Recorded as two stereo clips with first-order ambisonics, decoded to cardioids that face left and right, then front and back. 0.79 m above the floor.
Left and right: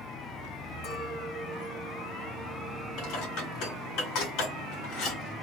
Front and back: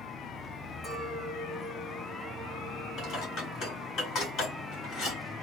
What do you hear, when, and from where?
0.8 s a clink: 95° left, 2.5 m
3.0 s dishes clattering: 60° left, 2 m